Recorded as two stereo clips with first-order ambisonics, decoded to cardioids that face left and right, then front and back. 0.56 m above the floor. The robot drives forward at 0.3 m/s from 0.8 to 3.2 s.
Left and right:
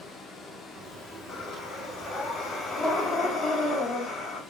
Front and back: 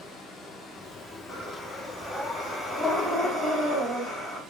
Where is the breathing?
50° left, 1.2 m; by 4.4 s 105° left, 1.2 m.